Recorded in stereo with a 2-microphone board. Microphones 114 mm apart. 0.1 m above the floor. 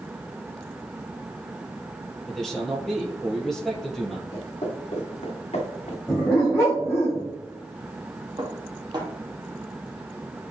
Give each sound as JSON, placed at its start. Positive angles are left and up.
{"t": 2.3, "sound": "a man speaking", "side_deg": 5, "distance_m": 2.5}
{"t": 4.3, "sound": "footsteps", "side_deg": 50, "distance_m": 3.0}
{"t": 6.1, "sound": "a dog barking", "side_deg": 20, "distance_m": 2.5}
{"t": 8.4, "sound": "dishes clattering", "side_deg": -40, "distance_m": 2.5}